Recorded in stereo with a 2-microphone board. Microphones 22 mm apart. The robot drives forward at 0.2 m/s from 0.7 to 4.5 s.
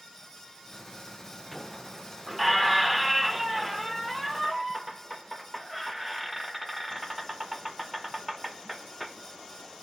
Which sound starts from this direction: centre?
A squeak, at 1.5 s.